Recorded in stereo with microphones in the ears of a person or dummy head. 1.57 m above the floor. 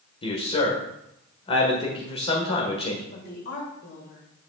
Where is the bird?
No bird in this recording.